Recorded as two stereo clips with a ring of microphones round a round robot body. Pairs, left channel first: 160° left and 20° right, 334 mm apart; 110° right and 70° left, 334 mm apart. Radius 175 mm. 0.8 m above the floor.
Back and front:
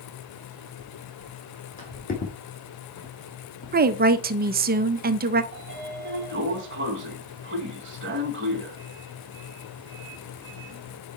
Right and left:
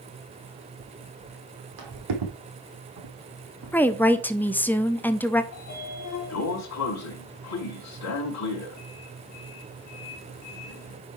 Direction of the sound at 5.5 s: 75° right.